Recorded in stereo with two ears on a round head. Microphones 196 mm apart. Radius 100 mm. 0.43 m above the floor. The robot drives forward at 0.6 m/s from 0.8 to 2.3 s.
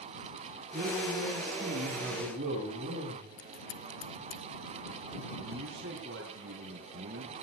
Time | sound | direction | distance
0.7 | a man speaking | 45° right (ahead or behind) | 8.5 m
3.4 | scissors | 65° left (ahead or behind) | 2 m
5.4 | a man speaking | 55° right (ahead or behind) | 4.5 m